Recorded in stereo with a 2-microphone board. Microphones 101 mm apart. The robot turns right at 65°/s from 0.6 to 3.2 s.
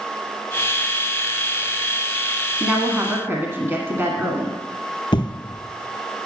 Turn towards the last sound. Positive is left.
turn(degrees=50)  # may be behind; listen again after turning